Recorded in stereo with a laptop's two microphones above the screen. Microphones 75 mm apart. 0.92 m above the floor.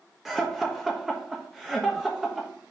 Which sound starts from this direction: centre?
Laughter, at 0.2 s.